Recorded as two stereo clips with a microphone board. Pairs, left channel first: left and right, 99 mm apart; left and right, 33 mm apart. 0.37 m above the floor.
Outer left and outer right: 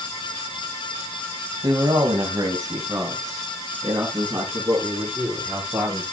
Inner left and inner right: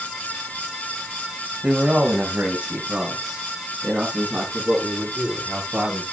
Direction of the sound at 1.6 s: 45° right (ahead or behind).